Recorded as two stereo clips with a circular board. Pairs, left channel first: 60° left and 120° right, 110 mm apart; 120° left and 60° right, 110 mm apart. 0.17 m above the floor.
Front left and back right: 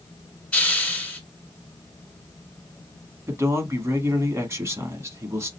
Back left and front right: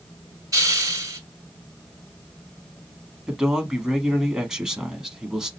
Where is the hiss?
15° right, 1.1 m.